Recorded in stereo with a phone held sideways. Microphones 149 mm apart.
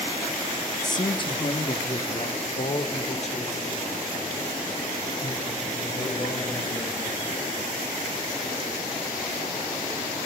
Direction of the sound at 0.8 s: 25° left (ahead or behind).